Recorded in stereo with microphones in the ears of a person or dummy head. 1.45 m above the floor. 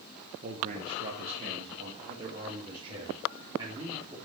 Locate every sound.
0.4 s a man speaking: 45° right (ahead or behind), 1.3 m; by 4.2 s 25° right (ahead or behind), 3.5 m